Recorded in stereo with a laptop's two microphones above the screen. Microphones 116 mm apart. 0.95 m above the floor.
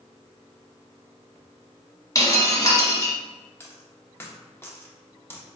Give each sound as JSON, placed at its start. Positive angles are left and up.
{"t": 2.1, "sound": "breaking glass", "side_deg": 30, "distance_m": 1.0}
{"t": 3.6, "sound": "a dropped coin", "side_deg": 20, "distance_m": 0.7}